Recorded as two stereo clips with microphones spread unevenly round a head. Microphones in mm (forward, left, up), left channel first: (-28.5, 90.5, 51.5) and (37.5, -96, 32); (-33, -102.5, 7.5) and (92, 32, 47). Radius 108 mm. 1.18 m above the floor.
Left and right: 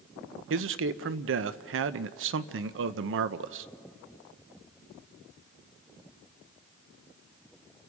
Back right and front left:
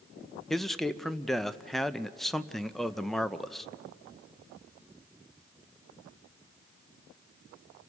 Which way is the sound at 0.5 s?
45° right.